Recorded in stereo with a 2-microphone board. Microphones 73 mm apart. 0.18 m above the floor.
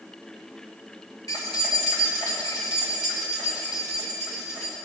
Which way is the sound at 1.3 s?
65° left (ahead or behind).